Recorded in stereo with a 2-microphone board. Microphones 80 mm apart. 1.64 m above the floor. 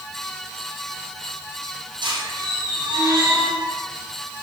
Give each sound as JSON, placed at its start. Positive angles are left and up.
{"t": 2.0, "sound": "a squeak", "side_deg": -75, "distance_m": 6.0}